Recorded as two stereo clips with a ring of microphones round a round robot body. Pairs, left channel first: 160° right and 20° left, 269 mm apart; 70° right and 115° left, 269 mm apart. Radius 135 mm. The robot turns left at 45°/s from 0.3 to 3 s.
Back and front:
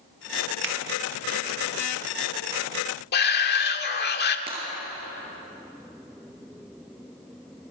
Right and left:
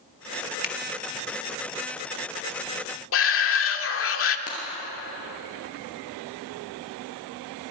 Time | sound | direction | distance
0.6 | a finger snap | 15° right | 1.5 m
3.1 | a shout | 105° right | 1.8 m
4.5 | breaking glass | 35° right | 7.5 m